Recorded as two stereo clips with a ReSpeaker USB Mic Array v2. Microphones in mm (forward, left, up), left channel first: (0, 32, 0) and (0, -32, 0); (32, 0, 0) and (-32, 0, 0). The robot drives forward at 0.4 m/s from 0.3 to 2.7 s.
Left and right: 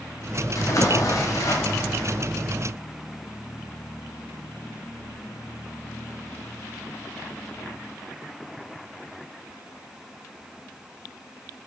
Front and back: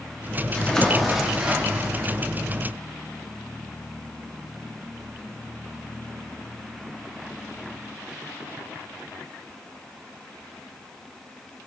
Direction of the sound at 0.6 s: 70° left.